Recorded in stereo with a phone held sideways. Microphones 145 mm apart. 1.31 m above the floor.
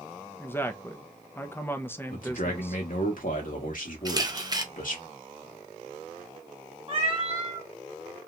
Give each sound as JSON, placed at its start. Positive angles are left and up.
{"t": 0.4, "sound": "a woman speaking", "side_deg": 15, "distance_m": 0.5}
{"t": 2.1, "sound": "a man speaking", "side_deg": 70, "distance_m": 1.3}
{"t": 4.0, "sound": "a camera shutter", "side_deg": -25, "distance_m": 0.6}
{"t": 6.9, "sound": "a cat meowing", "side_deg": -40, "distance_m": 1.0}